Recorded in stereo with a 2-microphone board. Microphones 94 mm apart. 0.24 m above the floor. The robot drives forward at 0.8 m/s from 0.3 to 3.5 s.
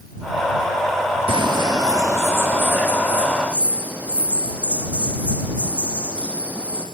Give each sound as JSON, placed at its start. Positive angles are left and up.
{"t": 1.3, "sound": "a bird", "side_deg": -65, "distance_m": 0.5}